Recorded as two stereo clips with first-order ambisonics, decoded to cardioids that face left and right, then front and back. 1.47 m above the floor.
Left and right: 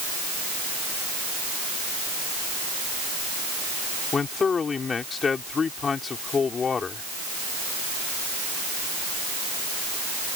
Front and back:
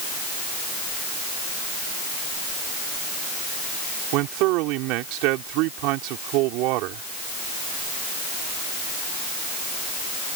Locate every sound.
4.1 s a man speaking: 160° left